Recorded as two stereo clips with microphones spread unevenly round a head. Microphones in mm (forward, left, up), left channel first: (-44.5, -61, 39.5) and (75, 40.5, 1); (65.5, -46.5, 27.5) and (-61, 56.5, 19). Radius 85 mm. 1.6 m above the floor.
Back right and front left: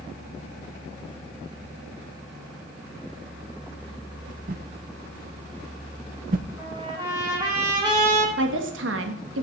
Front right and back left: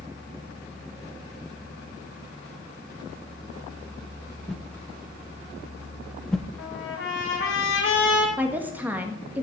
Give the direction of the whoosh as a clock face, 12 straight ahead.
11 o'clock.